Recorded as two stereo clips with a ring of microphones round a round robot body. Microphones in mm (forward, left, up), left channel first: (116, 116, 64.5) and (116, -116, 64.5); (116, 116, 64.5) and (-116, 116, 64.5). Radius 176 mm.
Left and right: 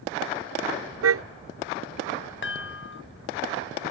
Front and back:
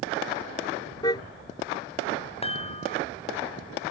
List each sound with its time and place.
1.0 s a car horn: 80° right
2.4 s a chime: 60° left